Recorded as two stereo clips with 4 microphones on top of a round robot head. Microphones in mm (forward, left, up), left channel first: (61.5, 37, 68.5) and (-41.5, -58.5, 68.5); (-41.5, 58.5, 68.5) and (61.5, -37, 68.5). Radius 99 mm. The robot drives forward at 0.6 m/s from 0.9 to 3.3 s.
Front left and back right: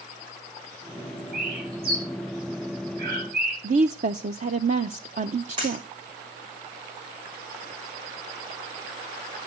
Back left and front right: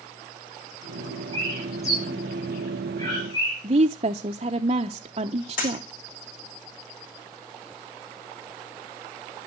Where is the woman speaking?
100° right, 0.5 m.